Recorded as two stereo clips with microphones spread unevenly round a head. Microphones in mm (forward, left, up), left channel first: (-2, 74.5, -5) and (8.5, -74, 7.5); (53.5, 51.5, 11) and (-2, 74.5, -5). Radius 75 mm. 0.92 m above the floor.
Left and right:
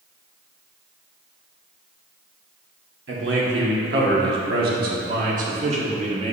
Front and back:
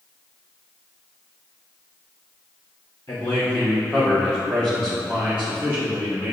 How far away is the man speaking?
About 2.5 m.